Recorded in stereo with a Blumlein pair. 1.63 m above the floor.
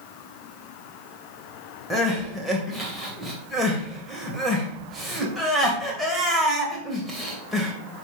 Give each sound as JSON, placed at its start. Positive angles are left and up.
{"t": 1.9, "sound": "crying", "azimuth_deg": 0, "distance_m": 2.5}